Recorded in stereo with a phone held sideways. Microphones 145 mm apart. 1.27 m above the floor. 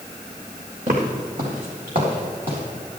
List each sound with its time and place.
0.9 s footsteps: 60° right (ahead or behind), 3 m; by 2.6 s 75° right (ahead or behind), 5 m